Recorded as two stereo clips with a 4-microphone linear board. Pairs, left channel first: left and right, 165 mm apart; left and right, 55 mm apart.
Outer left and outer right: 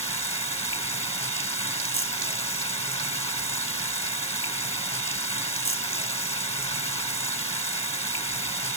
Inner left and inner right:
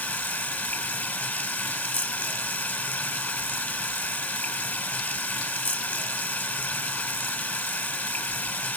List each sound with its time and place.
0.0 s running water: 40° left (ahead or behind), 2.5 m